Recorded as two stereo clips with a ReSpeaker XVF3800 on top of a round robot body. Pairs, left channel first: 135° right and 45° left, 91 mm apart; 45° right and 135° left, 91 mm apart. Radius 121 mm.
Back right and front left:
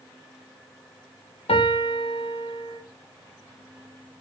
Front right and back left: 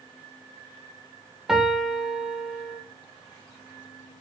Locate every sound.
1.5 s a piano: 140° right, 2 m